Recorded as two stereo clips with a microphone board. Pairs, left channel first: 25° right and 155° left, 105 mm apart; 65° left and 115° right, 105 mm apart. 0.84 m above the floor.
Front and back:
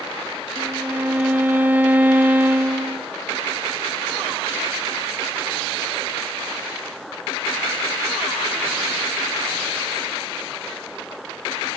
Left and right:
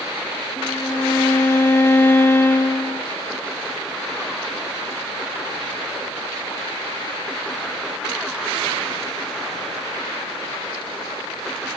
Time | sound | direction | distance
0.6 | a violin | 100° left | 0.6 m